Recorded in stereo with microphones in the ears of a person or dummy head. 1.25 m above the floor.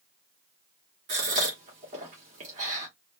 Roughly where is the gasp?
Right.